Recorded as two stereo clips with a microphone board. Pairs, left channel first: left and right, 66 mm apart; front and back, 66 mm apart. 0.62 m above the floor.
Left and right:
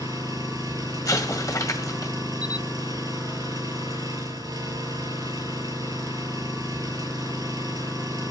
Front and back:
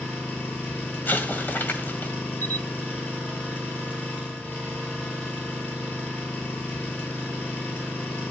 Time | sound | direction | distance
0.0 | an engine running | 70° right | 7 m
1.1 | an explosion | 60° left | 1.9 m
2.4 | a camera shutter | 155° right | 0.7 m